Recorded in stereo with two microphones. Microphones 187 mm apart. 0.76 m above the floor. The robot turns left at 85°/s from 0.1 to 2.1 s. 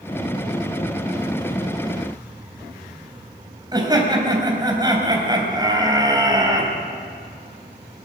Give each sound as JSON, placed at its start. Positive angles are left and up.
{"t": 3.7, "sound": "laughter", "side_deg": -25, "distance_m": 3.5}